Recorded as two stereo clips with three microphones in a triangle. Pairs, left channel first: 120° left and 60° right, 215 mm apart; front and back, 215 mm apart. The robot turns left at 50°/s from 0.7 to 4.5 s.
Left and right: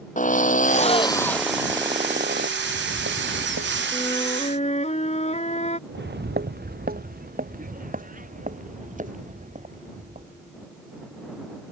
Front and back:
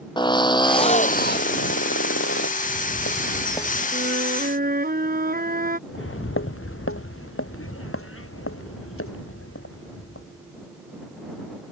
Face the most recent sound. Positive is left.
turn(degrees=-5)